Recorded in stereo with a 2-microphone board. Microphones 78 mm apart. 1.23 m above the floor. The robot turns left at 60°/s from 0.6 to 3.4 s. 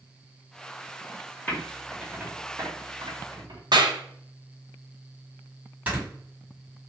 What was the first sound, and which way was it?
Typing on a keyboard, 25° left (ahead or behind).